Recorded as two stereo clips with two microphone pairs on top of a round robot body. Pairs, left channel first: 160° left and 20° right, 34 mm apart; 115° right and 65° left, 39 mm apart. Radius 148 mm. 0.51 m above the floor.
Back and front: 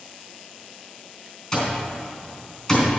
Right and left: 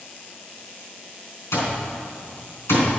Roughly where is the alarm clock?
Behind right.